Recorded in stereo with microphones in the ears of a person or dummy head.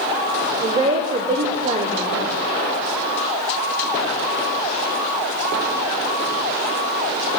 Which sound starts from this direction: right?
A woman speaking, at 0.6 s.